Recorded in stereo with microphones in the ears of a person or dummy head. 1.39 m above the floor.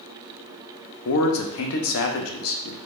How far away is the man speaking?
About 0.9 m.